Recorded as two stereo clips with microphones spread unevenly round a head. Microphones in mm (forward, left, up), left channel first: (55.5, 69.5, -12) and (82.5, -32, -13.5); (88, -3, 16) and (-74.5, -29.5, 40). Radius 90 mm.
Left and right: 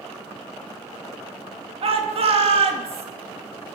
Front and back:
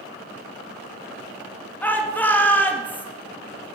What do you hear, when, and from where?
1.8 s a shout: 65° right, 1.8 m